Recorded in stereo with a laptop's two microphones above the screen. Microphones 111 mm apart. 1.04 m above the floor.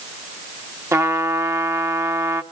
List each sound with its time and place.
0.9 s a trumpet: 25° right (ahead or behind), 1.5 m